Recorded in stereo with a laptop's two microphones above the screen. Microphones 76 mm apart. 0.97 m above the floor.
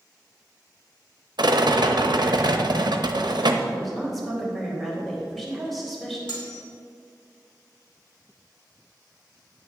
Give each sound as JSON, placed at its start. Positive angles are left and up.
{"t": 1.4, "sound": "a rattle", "side_deg": -70, "distance_m": 0.7}
{"t": 3.7, "sound": "a woman speaking", "side_deg": 0, "distance_m": 3.5}
{"t": 6.3, "sound": "cutlery clinking", "side_deg": 75, "distance_m": 2.0}